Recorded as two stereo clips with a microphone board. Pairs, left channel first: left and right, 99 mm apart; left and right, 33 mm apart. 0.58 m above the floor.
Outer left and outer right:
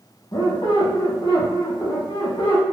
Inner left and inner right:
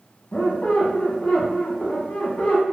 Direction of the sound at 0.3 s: 50° left (ahead or behind).